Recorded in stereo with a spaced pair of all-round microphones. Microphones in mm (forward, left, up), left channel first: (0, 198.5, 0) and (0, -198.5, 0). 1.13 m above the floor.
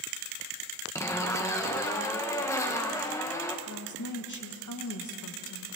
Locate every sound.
0.9 s a zipper: 5° left (ahead or behind), 1.2 m
3.7 s a woman speaking: 45° left (ahead or behind), 1.4 m